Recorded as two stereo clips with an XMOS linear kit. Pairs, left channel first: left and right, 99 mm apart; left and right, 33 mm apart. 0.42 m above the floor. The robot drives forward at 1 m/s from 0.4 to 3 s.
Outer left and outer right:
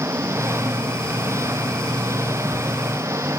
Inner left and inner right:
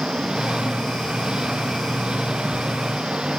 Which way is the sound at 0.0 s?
25° right (ahead or behind).